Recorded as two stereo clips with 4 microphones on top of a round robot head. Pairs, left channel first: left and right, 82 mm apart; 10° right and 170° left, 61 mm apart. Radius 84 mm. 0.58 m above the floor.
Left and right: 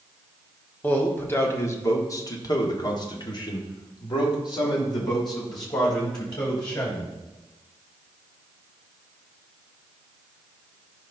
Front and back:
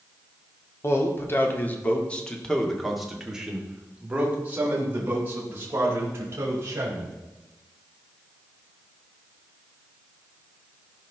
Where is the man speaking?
25° left, 1.9 m; by 7.2 s 125° left, 4 m.